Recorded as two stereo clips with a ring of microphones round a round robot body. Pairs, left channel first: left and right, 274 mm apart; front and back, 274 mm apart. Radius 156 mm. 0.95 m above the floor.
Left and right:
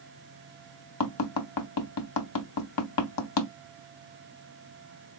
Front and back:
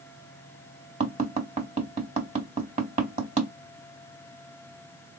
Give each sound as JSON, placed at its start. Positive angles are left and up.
{"t": 1.0, "sound": "tapping", "azimuth_deg": 110, "distance_m": 0.8}